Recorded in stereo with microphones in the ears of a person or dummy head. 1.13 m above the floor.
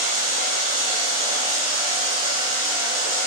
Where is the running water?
40° right (ahead or behind), 0.7 m.